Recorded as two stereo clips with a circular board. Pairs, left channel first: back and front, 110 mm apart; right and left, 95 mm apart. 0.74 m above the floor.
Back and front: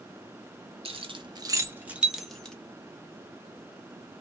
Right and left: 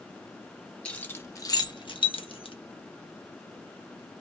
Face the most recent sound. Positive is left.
turn(degrees=-100)